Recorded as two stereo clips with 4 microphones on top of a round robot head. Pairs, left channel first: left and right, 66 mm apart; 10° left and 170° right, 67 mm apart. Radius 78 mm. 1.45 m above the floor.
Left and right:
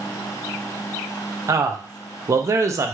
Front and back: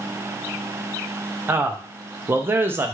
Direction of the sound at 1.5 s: 120° right.